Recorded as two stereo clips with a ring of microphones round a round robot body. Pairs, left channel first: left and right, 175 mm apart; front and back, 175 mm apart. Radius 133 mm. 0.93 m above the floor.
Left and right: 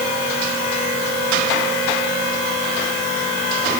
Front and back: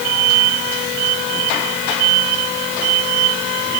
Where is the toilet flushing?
No toilet flushing in this recording.